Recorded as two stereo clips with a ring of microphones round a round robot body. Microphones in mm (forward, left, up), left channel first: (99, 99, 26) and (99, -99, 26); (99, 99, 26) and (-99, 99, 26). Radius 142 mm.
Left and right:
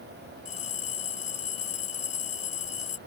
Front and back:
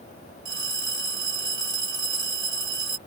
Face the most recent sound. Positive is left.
turn(degrees=160)